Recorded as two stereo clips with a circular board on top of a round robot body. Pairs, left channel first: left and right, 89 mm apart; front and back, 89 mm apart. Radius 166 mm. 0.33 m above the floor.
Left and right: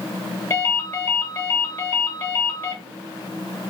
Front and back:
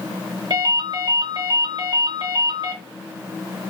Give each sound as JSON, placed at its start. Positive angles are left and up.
{"t": 0.5, "sound": "a ringtone", "azimuth_deg": 150, "distance_m": 1.4}